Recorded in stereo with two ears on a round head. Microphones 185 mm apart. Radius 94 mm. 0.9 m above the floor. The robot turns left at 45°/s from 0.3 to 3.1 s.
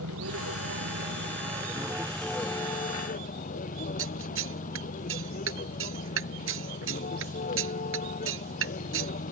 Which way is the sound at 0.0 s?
95° right.